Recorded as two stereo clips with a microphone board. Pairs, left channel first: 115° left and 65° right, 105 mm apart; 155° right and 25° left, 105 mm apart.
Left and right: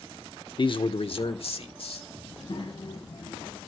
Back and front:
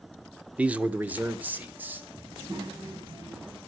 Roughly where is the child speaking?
Left.